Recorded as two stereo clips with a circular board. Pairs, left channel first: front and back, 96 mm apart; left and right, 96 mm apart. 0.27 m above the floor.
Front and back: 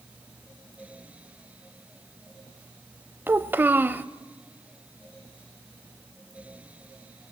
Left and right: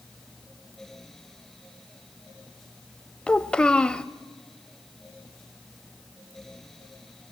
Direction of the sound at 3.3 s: 155° left.